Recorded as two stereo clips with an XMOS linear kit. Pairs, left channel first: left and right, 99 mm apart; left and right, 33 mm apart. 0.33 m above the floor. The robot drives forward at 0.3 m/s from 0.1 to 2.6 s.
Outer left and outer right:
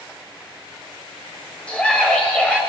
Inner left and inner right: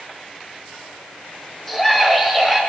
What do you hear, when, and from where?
1.7 s a scream: 10° left (ahead or behind), 1.1 m